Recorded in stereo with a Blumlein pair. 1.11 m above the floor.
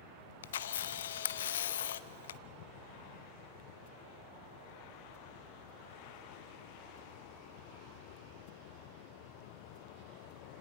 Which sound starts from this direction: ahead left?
A camera shutter, at 0.4 s.